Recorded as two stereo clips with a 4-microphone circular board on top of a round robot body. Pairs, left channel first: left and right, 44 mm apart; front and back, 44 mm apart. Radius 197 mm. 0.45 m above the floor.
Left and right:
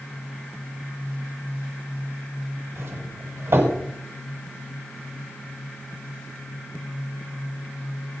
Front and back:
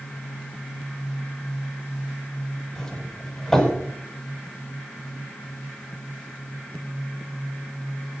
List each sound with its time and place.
2.8 s a doorbell: 80° right, 7.5 m